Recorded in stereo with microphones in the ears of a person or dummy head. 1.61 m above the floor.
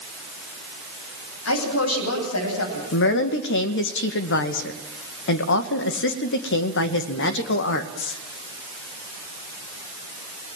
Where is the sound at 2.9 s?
60° left (ahead or behind), 2.0 m.